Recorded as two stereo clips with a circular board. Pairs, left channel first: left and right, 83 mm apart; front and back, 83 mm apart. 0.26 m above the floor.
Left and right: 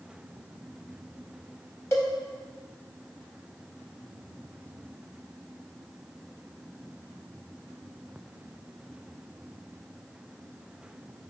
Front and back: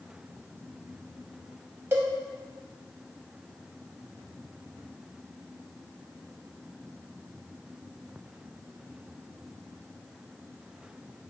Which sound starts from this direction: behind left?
A cowbell, at 1.9 s.